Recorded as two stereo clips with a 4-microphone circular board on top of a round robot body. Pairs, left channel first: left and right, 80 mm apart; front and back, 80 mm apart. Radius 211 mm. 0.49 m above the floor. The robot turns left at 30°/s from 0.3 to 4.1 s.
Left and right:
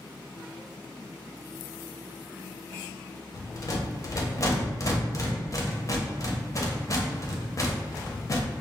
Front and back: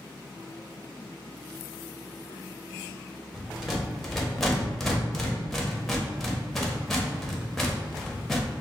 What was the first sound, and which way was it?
A rattle, 110° left.